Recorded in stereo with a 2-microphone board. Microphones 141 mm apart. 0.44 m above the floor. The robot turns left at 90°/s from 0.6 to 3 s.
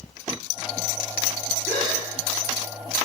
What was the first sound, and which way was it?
A gasp, 80° left.